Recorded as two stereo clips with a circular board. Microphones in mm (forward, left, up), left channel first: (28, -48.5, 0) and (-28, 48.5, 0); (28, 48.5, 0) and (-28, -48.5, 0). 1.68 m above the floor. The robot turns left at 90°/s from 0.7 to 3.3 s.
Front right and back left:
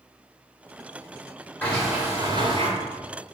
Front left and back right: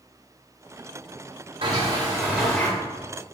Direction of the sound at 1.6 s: 130° right.